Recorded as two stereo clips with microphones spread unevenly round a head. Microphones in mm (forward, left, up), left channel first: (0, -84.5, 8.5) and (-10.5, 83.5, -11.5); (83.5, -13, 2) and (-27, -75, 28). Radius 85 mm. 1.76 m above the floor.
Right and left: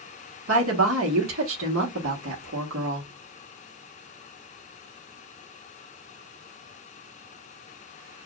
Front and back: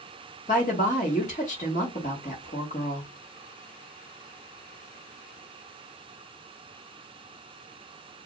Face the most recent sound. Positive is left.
turn(degrees=80)